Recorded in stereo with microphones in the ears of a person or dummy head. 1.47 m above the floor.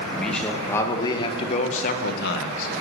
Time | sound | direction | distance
0.1 | a man speaking | 5° left (ahead or behind) | 2 m